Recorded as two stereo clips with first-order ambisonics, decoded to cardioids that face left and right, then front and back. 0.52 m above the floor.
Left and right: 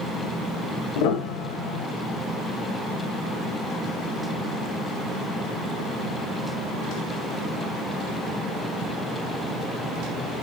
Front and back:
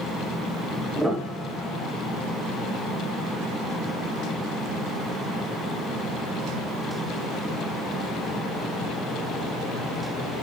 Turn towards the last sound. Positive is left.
turn(degrees=90)